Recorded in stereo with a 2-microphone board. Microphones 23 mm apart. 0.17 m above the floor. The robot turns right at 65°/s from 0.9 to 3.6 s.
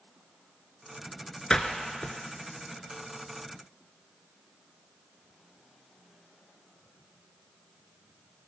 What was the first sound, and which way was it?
A door slam, 40° left (ahead or behind).